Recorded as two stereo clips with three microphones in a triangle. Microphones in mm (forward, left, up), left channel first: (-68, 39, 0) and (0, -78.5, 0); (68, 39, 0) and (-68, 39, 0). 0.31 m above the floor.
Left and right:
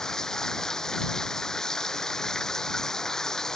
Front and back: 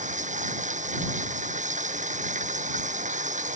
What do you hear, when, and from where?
0.0 s running water: 155° right